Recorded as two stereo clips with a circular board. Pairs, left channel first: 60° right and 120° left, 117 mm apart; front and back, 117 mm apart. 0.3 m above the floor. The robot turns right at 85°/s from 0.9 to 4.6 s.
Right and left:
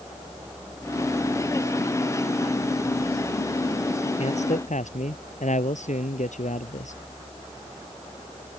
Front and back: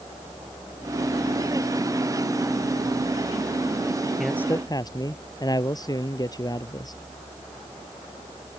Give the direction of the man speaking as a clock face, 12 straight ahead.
3 o'clock.